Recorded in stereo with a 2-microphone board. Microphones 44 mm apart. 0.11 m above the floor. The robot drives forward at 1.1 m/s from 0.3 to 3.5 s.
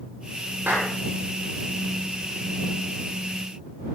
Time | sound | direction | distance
0.7 | a clap | 50° right (ahead or behind) | 9 m